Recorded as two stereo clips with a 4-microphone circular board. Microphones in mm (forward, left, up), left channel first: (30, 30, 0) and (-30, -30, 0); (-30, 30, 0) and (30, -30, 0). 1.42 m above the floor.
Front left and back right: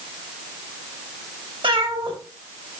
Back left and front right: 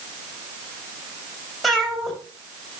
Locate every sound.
1.6 s a cat meowing: 135° right, 4 m